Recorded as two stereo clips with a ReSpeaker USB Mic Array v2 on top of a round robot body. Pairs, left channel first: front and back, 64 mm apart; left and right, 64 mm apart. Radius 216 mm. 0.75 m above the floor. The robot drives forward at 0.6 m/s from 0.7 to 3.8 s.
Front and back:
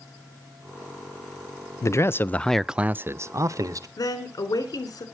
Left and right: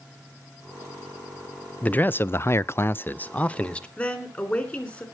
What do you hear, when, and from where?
1.8 s a man speaking: 25° left, 0.7 m; by 3.9 s 160° left, 0.9 m
4.0 s a woman speaking: 20° left, 3.5 m